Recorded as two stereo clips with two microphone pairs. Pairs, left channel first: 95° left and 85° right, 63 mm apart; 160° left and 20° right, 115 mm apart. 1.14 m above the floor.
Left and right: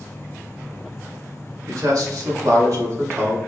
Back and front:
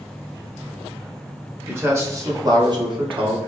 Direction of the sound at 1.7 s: 90° right.